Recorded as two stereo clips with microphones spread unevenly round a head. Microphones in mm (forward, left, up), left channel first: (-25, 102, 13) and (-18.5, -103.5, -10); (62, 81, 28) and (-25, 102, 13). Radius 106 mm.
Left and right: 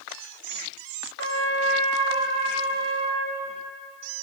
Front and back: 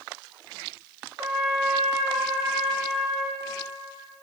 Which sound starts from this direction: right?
A trumpet, at 1.2 s.